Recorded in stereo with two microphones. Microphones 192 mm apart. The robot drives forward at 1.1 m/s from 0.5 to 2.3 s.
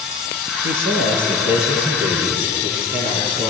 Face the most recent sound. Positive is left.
turn(degrees=-55)  # may be behind; listen again after turning